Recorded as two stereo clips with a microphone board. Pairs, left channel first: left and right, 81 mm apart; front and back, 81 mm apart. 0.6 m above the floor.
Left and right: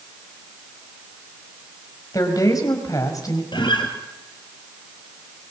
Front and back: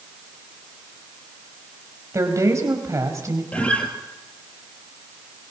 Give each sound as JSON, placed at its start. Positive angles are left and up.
{"t": 2.1, "sound": "a woman speaking", "azimuth_deg": 130, "distance_m": 4.0}
{"t": 3.5, "sound": "a guitar", "azimuth_deg": 75, "distance_m": 2.5}